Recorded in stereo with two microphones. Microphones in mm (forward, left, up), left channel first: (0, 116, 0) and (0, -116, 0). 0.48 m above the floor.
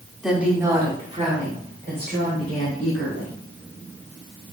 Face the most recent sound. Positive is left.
turn(degrees=-55)  # may be behind; listen again after turning